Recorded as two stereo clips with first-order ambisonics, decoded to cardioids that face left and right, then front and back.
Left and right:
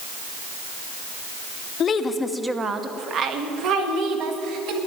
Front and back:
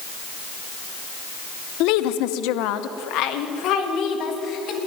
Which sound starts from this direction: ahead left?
A woman speaking, at 1.8 s.